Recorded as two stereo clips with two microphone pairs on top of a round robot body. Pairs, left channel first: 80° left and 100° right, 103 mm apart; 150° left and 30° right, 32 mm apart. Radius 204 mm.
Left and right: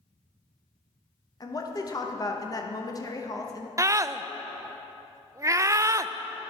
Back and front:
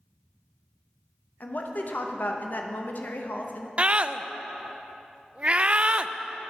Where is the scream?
60° right, 0.5 m.